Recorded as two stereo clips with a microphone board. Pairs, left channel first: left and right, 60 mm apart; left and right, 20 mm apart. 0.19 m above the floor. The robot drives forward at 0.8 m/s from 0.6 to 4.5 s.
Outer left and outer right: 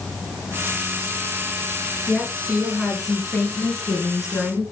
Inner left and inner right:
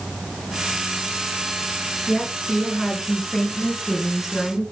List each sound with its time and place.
2.1 s a woman speaking: 5° right (ahead or behind), 4 m; by 4.6 s 10° right (ahead or behind), 2.5 m